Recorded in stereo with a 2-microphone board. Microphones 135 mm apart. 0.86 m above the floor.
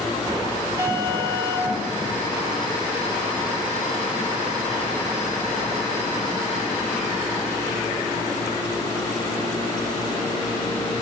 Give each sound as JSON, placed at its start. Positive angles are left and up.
{"t": 0.8, "sound": "an alarm", "side_deg": -20, "distance_m": 6.5}